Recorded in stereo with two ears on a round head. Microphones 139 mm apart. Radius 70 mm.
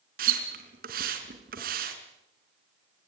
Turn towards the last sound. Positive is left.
turn(degrees=-65)  # may be behind; listen again after turning